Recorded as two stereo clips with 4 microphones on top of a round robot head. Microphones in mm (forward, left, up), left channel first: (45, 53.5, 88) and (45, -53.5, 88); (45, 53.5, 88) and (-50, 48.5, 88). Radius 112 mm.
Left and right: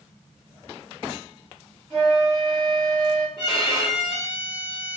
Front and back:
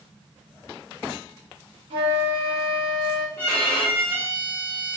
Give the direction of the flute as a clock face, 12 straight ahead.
6 o'clock.